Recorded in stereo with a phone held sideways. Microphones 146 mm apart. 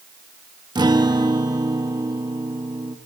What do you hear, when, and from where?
0.8 s a guitar: 30° right (ahead or behind), 0.7 m